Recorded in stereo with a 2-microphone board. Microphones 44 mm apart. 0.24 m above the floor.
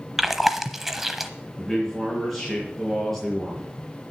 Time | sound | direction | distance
0.2 | chewing | 5° right (ahead or behind) | 0.8 m
1.6 | a man speaking | centre (ahead or behind) | 3.5 m